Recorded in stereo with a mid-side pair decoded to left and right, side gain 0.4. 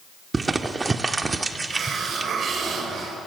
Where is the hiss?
60° right, 4.5 m.